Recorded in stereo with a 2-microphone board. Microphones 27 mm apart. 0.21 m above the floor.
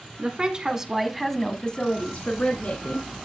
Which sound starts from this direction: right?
A woman speaking, at 0.2 s.